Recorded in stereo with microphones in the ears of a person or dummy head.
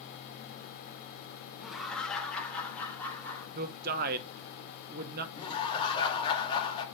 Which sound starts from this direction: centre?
Laughter, at 1.6 s.